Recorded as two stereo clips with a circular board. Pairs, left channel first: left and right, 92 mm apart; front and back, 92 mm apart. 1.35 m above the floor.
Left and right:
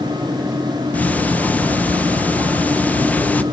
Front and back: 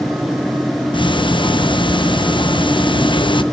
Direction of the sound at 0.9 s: 20° left.